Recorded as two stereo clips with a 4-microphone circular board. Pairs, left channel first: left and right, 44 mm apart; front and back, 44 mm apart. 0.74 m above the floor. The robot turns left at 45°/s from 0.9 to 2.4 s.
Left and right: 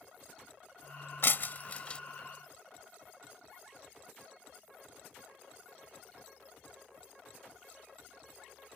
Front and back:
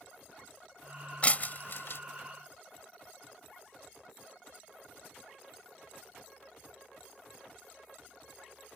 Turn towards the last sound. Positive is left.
turn(degrees=5)